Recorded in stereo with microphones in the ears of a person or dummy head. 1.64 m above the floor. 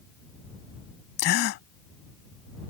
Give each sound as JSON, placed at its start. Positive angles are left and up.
{"t": 1.2, "sound": "a gasp", "side_deg": 60}